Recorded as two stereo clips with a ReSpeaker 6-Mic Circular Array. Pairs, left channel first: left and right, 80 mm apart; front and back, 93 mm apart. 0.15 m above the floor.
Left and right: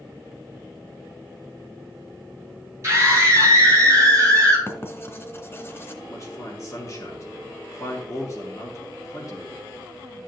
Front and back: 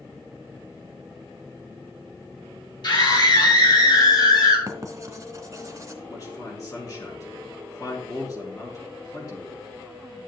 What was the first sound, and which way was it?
A scream, 35° right.